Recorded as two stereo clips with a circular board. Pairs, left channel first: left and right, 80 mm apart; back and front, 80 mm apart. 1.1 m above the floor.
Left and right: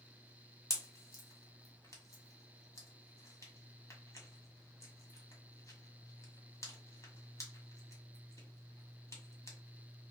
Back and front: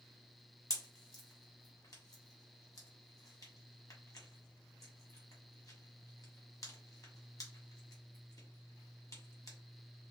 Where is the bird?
I don't hear a bird.